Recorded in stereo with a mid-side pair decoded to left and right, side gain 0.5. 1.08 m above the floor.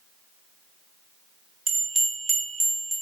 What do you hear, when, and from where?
1.7 s a bell: 15° right, 0.7 m